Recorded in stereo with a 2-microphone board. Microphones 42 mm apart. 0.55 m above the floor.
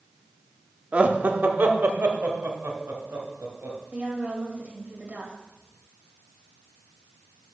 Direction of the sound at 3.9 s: 35° right (ahead or behind).